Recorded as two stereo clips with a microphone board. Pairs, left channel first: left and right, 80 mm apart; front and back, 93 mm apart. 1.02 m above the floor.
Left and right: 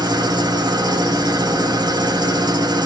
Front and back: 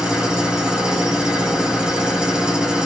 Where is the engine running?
100° right, 2.5 m.